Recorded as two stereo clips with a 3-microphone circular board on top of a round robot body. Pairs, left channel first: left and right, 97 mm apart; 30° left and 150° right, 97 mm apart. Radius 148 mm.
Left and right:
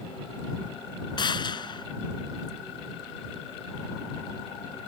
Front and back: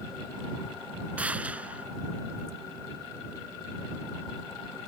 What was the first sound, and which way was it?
A gunshot, 130° left.